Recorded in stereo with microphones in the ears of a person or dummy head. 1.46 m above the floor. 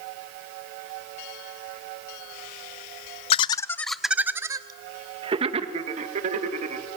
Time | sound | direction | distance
3.3 | laughter | 35° left (ahead or behind) | 0.8 m